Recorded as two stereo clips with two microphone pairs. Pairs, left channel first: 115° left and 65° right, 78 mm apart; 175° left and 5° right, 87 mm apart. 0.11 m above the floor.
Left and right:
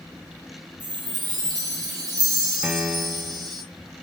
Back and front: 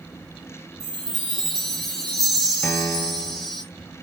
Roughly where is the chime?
Right.